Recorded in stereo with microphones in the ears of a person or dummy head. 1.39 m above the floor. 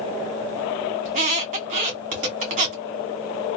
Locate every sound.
1.1 s a squeak: 40° right (ahead or behind), 0.9 m